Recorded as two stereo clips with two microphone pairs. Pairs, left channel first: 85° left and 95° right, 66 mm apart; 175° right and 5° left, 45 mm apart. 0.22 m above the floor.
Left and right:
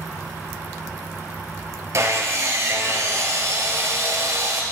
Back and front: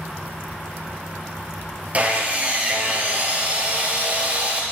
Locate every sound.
1.9 s sawing: 50° right, 0.8 m